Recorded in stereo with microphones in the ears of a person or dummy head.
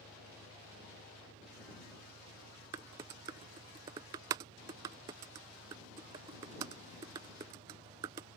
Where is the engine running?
65° right (ahead or behind).